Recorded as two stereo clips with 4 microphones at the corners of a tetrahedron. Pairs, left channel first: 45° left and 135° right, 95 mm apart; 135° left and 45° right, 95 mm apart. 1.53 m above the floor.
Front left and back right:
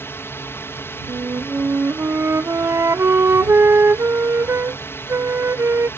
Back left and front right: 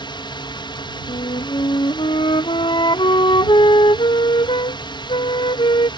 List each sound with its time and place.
0.0 s a drone: 110° left
1.1 s a flute: 165° left